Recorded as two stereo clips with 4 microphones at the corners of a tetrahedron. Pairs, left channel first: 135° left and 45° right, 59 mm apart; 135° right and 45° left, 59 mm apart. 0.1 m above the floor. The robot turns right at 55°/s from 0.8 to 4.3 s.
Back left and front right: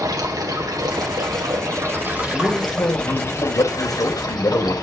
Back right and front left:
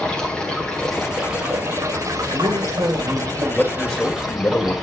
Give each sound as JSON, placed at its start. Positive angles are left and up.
{"t": 0.0, "sound": "running water", "azimuth_deg": -60, "distance_m": 4.0}
{"t": 2.3, "sound": "a man speaking", "azimuth_deg": 50, "distance_m": 5.0}